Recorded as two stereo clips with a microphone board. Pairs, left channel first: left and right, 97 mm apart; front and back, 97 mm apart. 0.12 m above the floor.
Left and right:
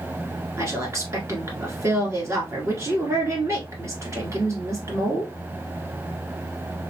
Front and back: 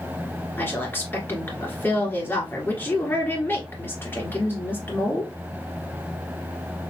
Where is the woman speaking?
55° right, 1.8 m.